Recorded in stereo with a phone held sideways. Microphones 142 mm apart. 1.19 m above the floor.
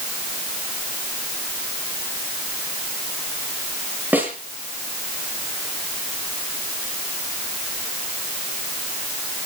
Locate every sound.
4.1 s a snare drum: 10° right (ahead or behind), 7.5 m